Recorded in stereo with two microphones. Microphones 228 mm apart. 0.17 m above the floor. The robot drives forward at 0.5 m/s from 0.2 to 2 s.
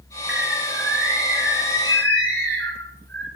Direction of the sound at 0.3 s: 60° right (ahead or behind).